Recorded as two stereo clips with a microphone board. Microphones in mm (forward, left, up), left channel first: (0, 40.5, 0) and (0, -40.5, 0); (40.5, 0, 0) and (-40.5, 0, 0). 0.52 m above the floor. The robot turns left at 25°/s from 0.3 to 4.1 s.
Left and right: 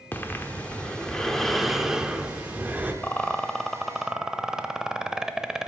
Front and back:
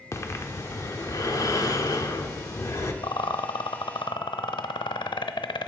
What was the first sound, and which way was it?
Breathing, 35° left.